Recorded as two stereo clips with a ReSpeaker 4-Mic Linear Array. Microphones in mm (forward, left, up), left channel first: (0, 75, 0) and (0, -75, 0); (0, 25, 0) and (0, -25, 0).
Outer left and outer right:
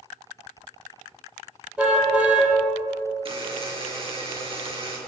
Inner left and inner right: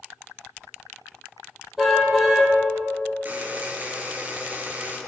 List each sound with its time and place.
1.8 s a car horn: 10° right (ahead or behind), 9 m
3.2 s a buzzer: 40° right (ahead or behind), 6 m